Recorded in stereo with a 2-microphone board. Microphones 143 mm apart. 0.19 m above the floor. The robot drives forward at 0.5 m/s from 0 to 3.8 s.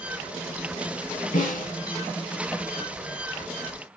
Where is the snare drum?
65° left (ahead or behind), 5 m.